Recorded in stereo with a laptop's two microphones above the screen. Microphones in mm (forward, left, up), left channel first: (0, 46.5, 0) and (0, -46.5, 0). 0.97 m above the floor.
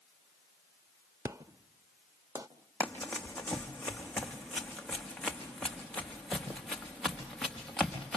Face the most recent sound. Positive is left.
turn(degrees=5)  # may be behind; listen again after turning